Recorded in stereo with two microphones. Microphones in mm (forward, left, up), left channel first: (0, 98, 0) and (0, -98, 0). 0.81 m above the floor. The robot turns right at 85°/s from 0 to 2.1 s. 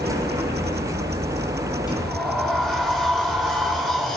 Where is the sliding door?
20° left (ahead or behind), 6.5 m; by 4.2 s centre (ahead or behind), 6.5 m.